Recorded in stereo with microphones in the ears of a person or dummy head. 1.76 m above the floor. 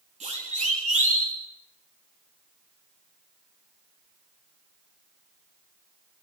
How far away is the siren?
About 5 m.